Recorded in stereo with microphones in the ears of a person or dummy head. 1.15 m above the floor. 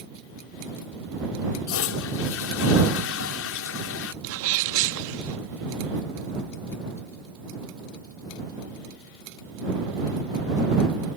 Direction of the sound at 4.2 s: 70° right (ahead or behind).